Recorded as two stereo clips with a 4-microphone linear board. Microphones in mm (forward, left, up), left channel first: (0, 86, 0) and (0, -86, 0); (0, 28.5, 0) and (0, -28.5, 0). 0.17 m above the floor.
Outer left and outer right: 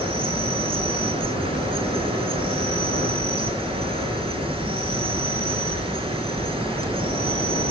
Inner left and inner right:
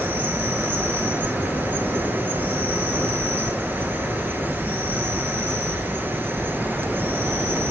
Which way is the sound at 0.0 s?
30° right (ahead or behind).